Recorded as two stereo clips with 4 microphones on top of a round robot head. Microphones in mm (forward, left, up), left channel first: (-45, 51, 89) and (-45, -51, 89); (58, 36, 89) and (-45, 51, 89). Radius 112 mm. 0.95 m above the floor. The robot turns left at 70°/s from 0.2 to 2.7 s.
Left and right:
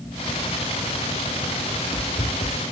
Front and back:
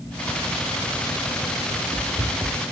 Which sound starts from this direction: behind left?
Running footsteps, at 1.7 s.